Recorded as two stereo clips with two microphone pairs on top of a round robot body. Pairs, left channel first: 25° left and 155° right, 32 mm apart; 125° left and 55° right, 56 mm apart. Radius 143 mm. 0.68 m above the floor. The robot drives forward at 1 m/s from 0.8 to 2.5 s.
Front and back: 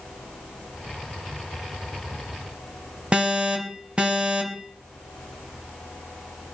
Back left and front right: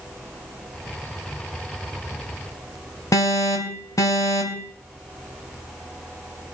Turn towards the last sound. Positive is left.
turn(degrees=145)